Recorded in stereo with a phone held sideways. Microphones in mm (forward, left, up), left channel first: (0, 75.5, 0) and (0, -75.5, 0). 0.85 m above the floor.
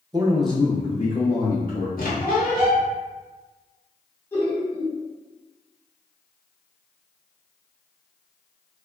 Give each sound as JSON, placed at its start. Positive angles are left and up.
{"t": 0.1, "sound": "a man speaking", "side_deg": -30, "distance_m": 0.6}
{"t": 2.0, "sound": "a squeak", "side_deg": 70, "distance_m": 0.9}
{"t": 4.3, "sound": "laughter", "side_deg": 15, "distance_m": 0.9}